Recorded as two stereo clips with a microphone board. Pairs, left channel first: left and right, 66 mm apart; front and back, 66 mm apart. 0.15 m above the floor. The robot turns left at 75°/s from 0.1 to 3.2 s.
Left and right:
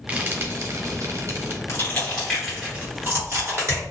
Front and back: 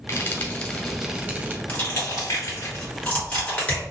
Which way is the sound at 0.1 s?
30° right.